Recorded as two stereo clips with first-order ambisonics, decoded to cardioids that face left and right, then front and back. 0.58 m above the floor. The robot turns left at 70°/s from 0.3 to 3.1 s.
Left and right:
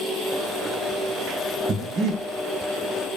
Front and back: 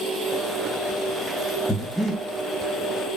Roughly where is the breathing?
Right.